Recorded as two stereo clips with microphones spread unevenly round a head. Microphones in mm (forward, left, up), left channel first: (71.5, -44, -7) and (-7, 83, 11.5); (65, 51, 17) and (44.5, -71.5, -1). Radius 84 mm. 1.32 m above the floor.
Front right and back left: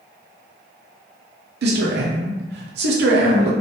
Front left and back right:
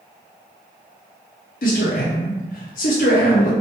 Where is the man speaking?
115° left, 0.9 m.